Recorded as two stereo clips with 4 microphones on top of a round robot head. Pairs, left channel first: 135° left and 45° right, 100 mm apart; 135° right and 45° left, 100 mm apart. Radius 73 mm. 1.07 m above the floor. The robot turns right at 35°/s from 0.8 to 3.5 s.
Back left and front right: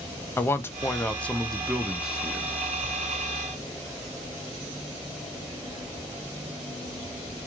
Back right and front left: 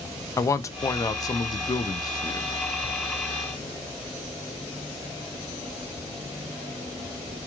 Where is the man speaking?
170° right, 0.6 m; by 2.5 s 110° right, 0.6 m.